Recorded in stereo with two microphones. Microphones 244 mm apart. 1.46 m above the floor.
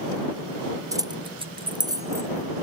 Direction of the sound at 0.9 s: 15° right (ahead or behind).